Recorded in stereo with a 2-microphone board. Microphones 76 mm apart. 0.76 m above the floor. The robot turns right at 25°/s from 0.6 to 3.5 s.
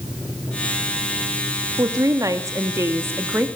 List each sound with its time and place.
1.8 s a woman speaking: 75° right, 1.2 m; by 3.5 s 35° right, 1.2 m